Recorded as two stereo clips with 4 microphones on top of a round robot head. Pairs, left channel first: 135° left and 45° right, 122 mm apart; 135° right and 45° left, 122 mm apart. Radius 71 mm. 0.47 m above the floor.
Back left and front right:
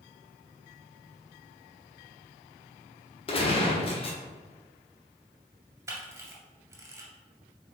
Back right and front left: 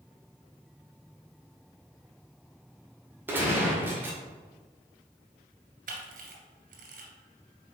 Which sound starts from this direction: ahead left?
A camera shutter, at 5.9 s.